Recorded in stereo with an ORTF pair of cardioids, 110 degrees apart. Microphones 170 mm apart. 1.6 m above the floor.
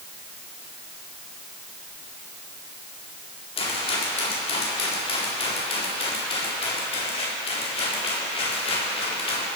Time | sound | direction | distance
3.6 | a rattle | 35° left | 4 m